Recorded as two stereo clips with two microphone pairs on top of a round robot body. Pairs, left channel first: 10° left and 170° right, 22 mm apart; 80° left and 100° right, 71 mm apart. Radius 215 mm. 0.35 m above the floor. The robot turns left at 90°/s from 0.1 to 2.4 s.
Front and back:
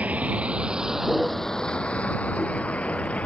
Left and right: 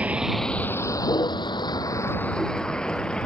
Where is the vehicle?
175° right; by 3.3 s straight ahead.